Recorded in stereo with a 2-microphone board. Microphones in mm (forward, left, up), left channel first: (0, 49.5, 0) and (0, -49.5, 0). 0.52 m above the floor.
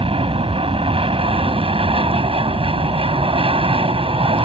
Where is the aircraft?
65° right (ahead or behind).